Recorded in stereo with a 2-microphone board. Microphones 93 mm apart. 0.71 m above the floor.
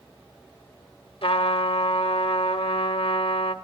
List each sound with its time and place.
1.2 s a trumpet: 75° left (ahead or behind), 0.8 m